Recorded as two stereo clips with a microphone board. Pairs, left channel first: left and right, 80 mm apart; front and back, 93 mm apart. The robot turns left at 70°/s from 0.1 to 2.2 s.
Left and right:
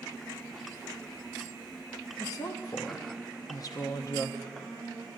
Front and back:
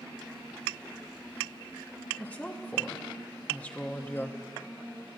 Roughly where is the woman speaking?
Left.